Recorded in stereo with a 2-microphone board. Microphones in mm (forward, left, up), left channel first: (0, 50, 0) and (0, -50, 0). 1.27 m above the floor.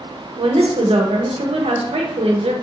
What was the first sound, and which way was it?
A woman speaking, 70° right (ahead or behind).